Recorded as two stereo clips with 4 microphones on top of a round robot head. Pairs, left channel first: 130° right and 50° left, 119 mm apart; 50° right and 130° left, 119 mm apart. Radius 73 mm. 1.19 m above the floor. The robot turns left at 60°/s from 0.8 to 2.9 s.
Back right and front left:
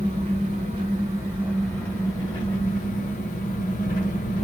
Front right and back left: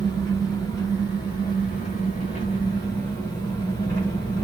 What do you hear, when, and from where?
0.0 s an engine running: 10° left, 1.2 m; by 4.5 s 115° right, 1.2 m